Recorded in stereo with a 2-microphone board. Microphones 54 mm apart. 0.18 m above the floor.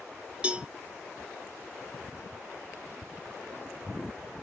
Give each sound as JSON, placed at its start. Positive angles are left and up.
{"t": 0.4, "sound": "a cowbell", "side_deg": -20, "distance_m": 0.7}